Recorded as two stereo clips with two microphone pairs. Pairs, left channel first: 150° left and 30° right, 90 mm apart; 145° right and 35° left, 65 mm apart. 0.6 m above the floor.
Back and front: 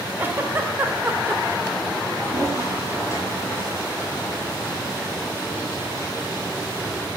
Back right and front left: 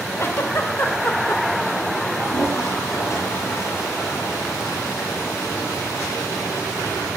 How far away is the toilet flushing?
About 9.5 m.